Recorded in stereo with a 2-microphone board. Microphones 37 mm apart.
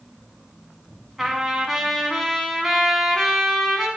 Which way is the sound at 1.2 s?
Centre (ahead or behind).